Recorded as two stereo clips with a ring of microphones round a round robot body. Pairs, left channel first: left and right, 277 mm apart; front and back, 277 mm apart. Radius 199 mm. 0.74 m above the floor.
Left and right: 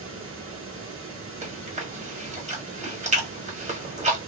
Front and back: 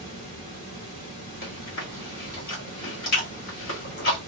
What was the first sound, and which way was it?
Running water, 45° right.